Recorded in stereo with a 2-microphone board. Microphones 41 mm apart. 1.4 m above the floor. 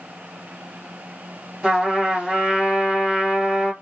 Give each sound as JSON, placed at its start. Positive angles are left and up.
{"t": 1.6, "sound": "a trumpet", "side_deg": -5, "distance_m": 1.3}